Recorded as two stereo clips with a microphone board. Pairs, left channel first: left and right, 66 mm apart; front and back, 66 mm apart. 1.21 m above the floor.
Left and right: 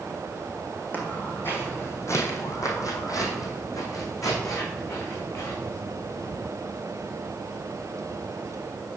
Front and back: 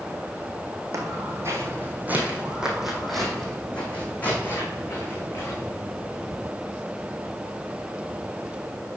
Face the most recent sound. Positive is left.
turn(degrees=45)